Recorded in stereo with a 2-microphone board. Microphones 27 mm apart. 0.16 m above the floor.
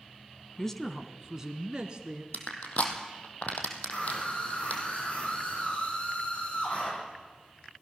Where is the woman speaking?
20° left (ahead or behind), 1.1 m; by 2.2 s 35° right (ahead or behind), 2 m.